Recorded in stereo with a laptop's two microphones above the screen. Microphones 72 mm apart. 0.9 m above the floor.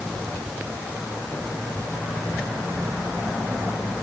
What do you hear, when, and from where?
Only background noise.